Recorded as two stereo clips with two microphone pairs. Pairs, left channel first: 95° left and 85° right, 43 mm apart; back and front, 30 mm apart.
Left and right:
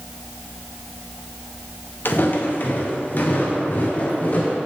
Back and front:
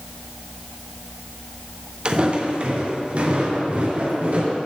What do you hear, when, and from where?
2.0 s footsteps: 55° left, 1.7 m; by 4.6 s 40° left, 3.5 m